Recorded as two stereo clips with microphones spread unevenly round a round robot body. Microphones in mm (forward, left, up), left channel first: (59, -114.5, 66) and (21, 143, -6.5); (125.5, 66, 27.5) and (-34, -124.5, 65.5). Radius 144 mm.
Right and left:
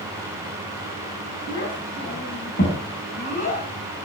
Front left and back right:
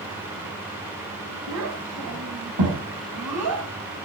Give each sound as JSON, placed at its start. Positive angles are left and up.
{"t": 1.5, "sound": "a child speaking", "azimuth_deg": -140, "distance_m": 3.5}